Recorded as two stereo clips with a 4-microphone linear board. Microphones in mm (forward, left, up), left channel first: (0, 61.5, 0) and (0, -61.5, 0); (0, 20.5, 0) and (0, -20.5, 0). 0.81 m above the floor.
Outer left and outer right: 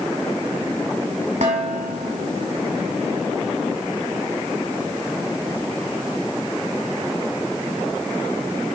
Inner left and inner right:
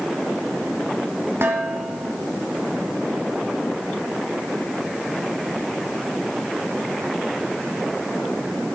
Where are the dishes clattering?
70° right (ahead or behind), 1.7 m.